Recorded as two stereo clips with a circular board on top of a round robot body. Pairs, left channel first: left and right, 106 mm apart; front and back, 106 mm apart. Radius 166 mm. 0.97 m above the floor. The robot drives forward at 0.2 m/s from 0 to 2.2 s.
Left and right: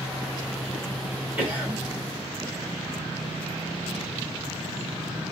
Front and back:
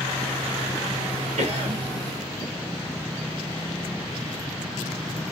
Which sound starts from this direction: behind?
A cough, at 1.4 s.